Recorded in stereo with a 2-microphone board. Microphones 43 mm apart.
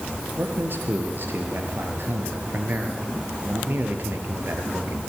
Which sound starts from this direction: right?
A man speaking, at 0.4 s.